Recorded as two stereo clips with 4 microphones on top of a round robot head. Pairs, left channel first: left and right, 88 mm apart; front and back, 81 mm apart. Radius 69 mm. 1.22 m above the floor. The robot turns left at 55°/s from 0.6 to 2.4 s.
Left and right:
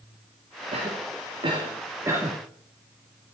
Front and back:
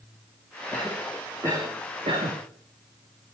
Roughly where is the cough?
Right.